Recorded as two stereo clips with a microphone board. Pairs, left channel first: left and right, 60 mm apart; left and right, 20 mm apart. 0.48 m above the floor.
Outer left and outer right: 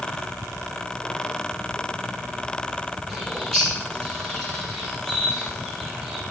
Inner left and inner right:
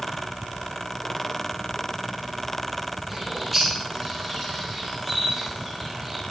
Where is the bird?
5° left (ahead or behind), 3.5 m.